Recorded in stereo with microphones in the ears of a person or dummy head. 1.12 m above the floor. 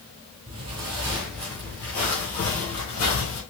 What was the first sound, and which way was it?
Footsteps, 35° right (ahead or behind).